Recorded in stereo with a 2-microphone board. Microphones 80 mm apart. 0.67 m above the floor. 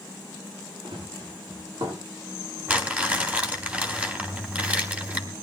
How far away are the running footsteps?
About 9 m.